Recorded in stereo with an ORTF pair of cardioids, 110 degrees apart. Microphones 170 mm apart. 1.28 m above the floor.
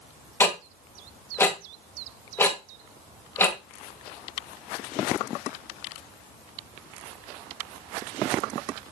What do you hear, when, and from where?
0.4 s ticking: 15° left, 1.6 m